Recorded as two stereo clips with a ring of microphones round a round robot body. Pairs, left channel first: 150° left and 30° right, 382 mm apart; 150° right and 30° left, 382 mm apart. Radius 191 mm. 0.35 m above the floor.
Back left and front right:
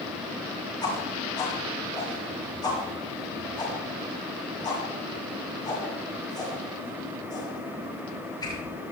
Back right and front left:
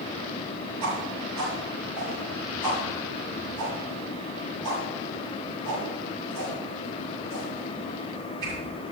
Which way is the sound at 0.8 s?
70° left.